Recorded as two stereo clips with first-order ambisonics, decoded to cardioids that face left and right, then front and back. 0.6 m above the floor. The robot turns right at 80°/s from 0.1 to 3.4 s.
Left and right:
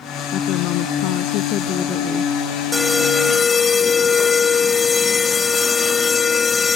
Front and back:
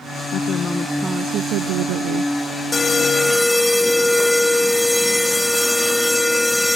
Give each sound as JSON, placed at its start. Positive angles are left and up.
{"t": 0.3, "sound": "a woman speaking", "azimuth_deg": 45}
{"t": 2.7, "sound": "an alarm", "azimuth_deg": 20}